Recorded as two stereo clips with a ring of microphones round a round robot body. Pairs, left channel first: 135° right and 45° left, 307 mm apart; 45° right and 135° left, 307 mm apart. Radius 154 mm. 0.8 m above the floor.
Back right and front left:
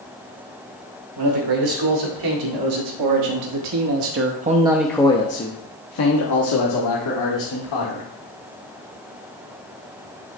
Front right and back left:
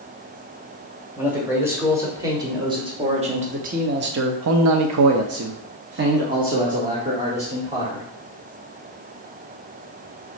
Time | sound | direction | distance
1.2 | a man speaking | 50° left | 2.5 m